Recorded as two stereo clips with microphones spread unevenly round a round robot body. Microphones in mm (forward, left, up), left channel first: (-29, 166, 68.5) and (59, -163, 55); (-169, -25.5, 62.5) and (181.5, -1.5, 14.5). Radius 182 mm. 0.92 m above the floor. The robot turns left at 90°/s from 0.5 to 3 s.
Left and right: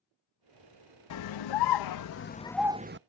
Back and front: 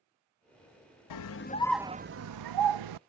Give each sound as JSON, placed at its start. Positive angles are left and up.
{"t": 1.1, "sound": "a scream", "azimuth_deg": 150}